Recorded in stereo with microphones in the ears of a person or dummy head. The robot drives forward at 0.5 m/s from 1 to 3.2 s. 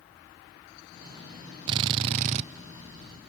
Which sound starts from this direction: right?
A drill, at 1.7 s.